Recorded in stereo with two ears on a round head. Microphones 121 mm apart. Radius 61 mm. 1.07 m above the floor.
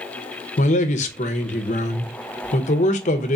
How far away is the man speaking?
About 0.7 m.